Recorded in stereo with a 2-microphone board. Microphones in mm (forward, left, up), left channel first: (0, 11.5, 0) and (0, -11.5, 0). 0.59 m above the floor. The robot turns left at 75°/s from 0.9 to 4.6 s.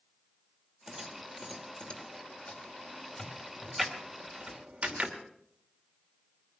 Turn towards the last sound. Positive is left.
turn(degrees=-60)  # may be behind; listen again after turning